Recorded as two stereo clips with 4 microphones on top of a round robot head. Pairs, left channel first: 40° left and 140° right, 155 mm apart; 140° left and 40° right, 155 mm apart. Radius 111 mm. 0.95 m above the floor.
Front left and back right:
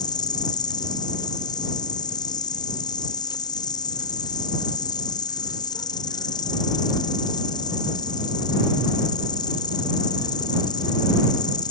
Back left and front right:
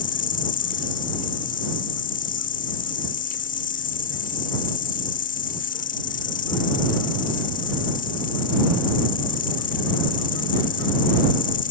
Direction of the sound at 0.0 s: 105° left.